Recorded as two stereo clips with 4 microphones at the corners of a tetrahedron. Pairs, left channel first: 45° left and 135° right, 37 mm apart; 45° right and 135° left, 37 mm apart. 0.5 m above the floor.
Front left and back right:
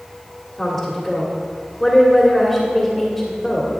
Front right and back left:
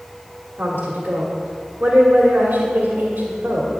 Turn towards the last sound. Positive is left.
turn(degrees=125)